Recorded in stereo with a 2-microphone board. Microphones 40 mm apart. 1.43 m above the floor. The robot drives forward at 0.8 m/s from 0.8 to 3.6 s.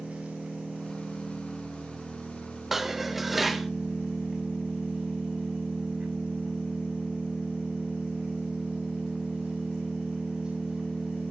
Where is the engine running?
35° right (ahead or behind), 4.5 m; by 11.3 s 25° right (ahead or behind), 6.5 m.